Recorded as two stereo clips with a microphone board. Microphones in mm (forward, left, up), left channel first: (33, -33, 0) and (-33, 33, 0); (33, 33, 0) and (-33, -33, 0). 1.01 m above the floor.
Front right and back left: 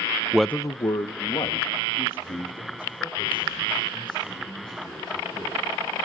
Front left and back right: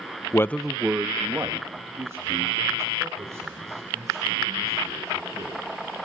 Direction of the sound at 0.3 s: 65° left.